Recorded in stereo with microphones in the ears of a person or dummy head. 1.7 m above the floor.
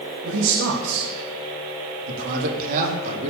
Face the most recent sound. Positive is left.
turn(degrees=-35)  # may be behind; listen again after turning